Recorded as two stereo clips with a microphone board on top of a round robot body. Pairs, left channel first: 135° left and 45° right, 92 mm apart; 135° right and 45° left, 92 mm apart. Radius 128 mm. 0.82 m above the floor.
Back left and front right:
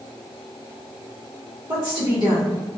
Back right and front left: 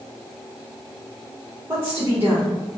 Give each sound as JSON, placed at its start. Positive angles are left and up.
{"t": 1.7, "sound": "a woman speaking", "azimuth_deg": -5, "distance_m": 1.1}